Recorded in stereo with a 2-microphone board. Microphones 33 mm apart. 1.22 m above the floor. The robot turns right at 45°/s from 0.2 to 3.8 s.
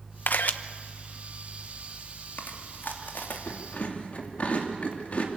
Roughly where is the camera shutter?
Left.